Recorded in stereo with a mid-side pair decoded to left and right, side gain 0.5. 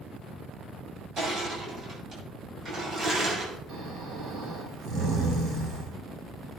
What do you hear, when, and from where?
1.2 s crushing: 55° right, 7.5 m
3.7 s snoring: 70° right, 4.5 m